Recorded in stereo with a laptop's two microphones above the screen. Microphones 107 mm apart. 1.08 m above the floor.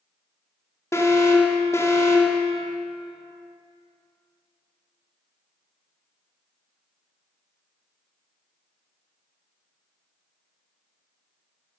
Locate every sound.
0.9 s an alarm: 30° left (ahead or behind), 1.8 m